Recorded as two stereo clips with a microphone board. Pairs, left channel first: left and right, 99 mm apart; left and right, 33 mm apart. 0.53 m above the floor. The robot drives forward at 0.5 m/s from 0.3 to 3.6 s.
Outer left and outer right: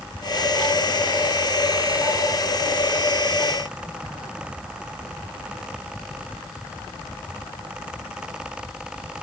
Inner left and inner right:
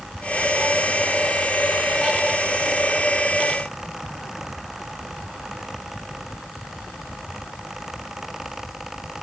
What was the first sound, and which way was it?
Only background noise.